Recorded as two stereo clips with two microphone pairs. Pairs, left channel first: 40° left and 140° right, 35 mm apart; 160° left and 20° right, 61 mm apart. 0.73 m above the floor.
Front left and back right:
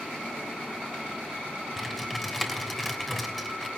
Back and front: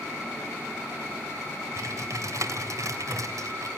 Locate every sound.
1.8 s typing on a keyboard: 45° right, 3 m